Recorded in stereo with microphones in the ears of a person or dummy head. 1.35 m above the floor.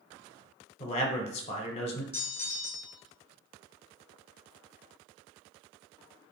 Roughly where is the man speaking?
Left.